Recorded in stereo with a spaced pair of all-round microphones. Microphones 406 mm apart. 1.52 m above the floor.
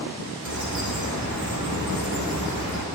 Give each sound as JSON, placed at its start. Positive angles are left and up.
{"t": 0.5, "sound": "a bird", "side_deg": -45, "distance_m": 1.5}